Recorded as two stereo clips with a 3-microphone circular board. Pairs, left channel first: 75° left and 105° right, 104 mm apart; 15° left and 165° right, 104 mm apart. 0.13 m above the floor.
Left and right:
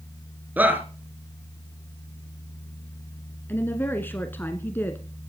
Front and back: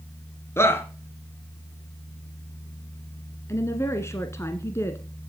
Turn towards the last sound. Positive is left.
turn(degrees=30)